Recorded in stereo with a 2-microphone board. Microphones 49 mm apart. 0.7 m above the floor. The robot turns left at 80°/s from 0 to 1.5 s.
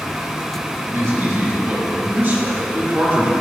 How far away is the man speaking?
About 2.5 m.